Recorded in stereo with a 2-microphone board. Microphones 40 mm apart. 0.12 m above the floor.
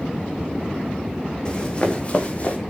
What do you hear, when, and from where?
1.4 s running footsteps: 25° left (ahead or behind), 4.5 m; by 2.6 s 40° left (ahead or behind), 4 m